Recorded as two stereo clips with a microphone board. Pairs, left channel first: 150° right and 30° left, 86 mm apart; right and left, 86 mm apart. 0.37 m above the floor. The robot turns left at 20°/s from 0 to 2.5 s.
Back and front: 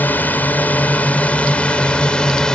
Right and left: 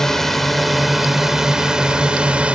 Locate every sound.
0.0 s a drone: 165° right; by 2.6 s 145° left